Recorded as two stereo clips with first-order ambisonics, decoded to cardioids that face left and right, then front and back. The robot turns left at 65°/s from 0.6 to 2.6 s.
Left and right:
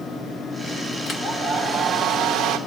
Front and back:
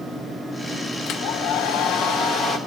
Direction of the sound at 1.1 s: 35° left.